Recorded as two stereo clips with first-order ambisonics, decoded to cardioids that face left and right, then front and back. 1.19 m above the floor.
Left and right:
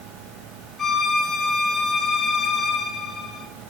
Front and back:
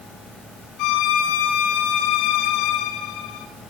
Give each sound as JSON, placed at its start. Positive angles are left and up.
{"t": 0.8, "sound": "a violin", "azimuth_deg": 15, "distance_m": 4.0}